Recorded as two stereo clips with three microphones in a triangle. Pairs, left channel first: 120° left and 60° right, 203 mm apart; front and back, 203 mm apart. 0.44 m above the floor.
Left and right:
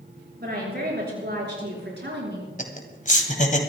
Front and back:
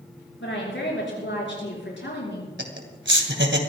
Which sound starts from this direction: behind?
Laughter, at 2.6 s.